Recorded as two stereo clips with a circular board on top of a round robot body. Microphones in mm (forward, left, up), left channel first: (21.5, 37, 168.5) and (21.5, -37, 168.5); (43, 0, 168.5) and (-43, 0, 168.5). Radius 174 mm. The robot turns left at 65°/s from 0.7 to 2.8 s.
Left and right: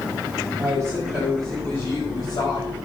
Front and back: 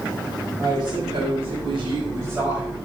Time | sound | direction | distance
0.6 | a woman speaking | 140° right | 4 m